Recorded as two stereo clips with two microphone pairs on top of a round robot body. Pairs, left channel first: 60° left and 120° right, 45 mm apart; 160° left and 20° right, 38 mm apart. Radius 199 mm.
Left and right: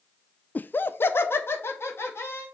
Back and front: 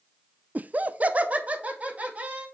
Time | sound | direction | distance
0.6 | laughter | 10° left | 0.6 m